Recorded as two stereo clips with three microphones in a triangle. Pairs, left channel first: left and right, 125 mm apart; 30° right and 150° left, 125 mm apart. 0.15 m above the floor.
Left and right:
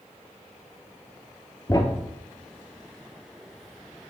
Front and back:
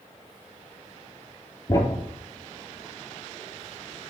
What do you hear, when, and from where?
1.7 s a thud: 30° left, 1.4 m